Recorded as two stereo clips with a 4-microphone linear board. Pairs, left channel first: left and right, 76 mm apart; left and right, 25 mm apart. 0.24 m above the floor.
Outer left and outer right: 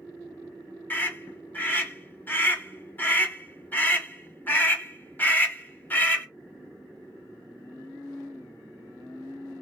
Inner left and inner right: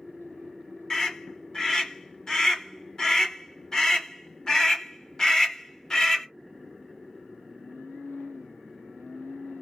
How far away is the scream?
About 1.3 m.